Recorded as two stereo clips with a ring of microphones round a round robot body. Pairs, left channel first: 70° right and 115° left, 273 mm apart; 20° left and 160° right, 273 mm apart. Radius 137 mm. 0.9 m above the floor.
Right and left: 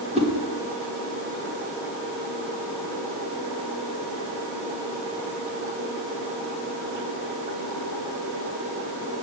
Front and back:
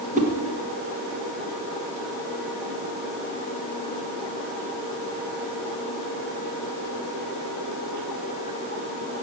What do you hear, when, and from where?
0.1 s a whoosh: 165° left, 1.1 m